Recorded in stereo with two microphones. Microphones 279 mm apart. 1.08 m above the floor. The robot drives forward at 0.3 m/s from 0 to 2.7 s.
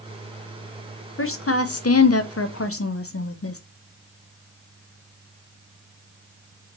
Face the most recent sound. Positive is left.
turn(degrees=55)  # may be behind; listen again after turning